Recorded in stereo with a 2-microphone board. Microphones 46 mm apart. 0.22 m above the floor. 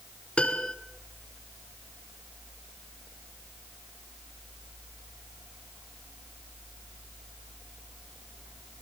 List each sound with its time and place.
0.4 s a piano: 25° left (ahead or behind), 1.6 m